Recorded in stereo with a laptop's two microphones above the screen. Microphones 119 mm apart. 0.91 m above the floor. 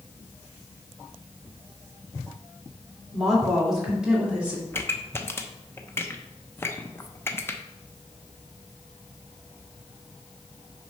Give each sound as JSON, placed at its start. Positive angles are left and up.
{"t": 3.1, "sound": "a woman speaking", "side_deg": 0, "distance_m": 2.5}
{"t": 4.7, "sound": "a pop", "side_deg": 20, "distance_m": 0.6}